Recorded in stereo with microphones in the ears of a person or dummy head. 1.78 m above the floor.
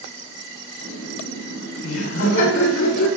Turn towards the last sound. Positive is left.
turn(degrees=65)  # may be behind; listen again after turning